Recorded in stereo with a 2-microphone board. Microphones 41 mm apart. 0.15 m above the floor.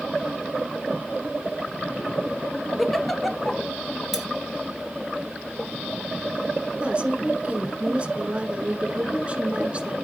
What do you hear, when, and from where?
2.8 s a giggle: 5° left (ahead or behind), 0.6 m
4.1 s cutlery clinking: 10° right (ahead or behind), 1.3 m
6.8 s a woman speaking: 25° right (ahead or behind), 1.5 m